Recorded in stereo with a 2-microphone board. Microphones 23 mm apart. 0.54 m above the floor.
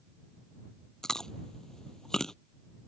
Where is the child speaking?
No child speaking in this recording.